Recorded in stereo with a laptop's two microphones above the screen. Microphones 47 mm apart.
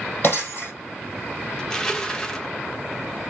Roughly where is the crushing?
Centre.